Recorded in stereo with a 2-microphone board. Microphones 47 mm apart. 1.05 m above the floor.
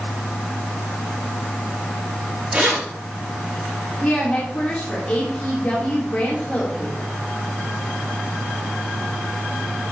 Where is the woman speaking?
30° left (ahead or behind), 3 m.